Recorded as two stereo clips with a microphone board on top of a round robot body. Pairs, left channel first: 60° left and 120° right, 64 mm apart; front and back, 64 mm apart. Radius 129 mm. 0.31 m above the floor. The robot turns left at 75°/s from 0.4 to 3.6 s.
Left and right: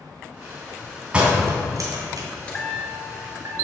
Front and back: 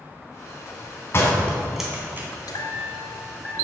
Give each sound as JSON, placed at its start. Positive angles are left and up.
{"t": 1.1, "sound": "a door slam", "azimuth_deg": -45, "distance_m": 2.5}
{"t": 2.5, "sound": "a chime", "azimuth_deg": -10, "distance_m": 1.9}